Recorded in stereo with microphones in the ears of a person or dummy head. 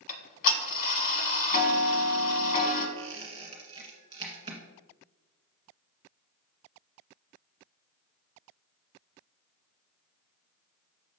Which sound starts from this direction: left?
Ticking, at 0.1 s.